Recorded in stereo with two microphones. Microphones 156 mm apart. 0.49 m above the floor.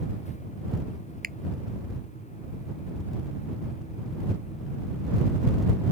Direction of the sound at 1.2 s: 70° right (ahead or behind).